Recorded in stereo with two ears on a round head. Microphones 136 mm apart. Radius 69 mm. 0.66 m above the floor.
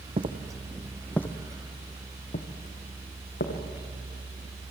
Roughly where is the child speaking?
I don't hear a child speaking.